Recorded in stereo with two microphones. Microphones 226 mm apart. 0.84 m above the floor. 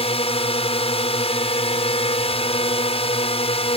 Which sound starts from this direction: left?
A drone, at 0.0 s.